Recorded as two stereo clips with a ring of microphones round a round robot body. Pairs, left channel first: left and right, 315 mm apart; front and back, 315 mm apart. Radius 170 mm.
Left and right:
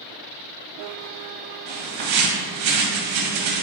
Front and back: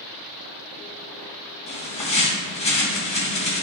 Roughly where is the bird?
Right.